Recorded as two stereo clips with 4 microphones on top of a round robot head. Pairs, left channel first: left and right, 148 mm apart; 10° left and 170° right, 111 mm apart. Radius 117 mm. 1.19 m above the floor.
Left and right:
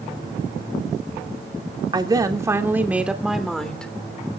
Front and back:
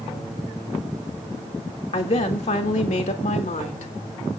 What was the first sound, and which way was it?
A woman speaking, 30° right.